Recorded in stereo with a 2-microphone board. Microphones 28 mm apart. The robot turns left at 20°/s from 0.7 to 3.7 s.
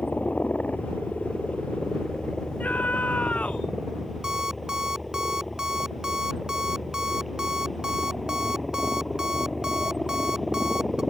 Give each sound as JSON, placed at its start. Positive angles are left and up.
{"t": 0.0, "sound": "a helicopter", "azimuth_deg": 60}
{"t": 2.6, "sound": "a scream", "side_deg": 65}
{"t": 4.2, "sound": "an alarm clock", "side_deg": -20}